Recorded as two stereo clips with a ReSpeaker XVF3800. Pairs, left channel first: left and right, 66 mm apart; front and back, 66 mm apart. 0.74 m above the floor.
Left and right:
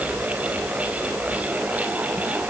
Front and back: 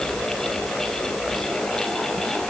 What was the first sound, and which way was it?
Only background noise.